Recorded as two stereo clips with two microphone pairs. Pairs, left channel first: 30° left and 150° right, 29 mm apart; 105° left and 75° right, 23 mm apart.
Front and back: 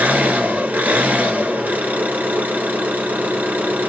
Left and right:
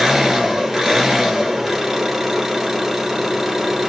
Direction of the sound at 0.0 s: 150° right.